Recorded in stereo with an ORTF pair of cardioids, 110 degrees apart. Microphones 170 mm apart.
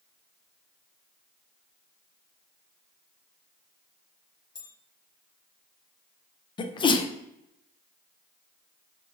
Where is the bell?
30° left, 0.9 m.